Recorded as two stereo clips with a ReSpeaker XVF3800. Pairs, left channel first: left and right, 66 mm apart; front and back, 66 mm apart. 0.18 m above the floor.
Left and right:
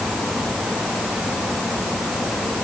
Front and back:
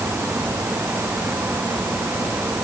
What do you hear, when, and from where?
Only background noise.